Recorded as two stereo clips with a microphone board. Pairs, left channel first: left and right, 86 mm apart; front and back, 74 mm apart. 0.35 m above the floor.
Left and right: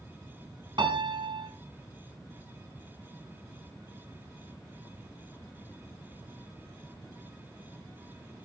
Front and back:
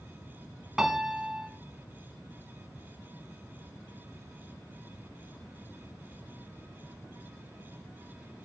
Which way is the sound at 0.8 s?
100° right.